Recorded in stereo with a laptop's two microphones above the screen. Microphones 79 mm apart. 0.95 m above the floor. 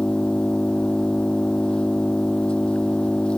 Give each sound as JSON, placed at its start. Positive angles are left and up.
{"t": 0.0, "sound": "an engine running", "side_deg": 10}